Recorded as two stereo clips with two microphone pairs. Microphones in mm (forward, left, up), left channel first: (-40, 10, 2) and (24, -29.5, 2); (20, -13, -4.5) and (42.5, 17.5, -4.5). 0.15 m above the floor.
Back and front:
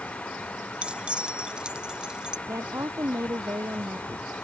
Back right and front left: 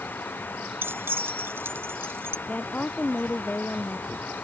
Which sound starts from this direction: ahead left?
Keys jangling, at 0.8 s.